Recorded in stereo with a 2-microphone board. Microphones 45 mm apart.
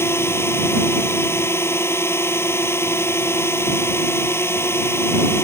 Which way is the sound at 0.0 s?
65° left (ahead or behind).